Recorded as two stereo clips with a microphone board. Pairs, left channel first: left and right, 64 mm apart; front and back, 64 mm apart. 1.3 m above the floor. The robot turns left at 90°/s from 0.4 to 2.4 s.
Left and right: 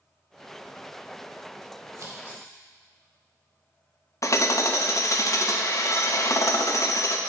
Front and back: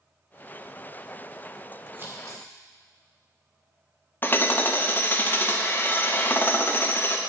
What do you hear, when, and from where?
1.9 s scissors: 120° right, 1.9 m; by 2.4 s 160° right, 1.9 m
4.2 s hammering: 55° left, 0.7 m